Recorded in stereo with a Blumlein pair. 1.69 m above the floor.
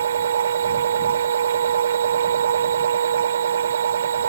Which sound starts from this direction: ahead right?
A machine running, at 0.0 s.